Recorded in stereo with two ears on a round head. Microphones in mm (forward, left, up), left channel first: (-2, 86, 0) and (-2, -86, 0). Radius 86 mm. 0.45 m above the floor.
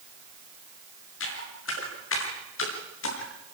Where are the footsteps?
75° left (ahead or behind), 8.5 m.